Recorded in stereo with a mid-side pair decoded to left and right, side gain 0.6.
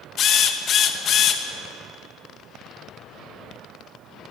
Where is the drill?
50° left, 2 m.